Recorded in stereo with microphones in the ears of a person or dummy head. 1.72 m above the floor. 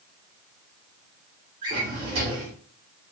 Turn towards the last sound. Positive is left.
turn(degrees=-25)  # may be behind; listen again after turning